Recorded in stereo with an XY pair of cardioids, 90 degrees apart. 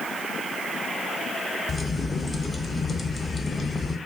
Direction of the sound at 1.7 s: 30° left.